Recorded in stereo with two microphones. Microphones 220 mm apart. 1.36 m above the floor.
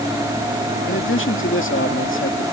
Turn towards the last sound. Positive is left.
turn(degrees=65)  # may be behind; listen again after turning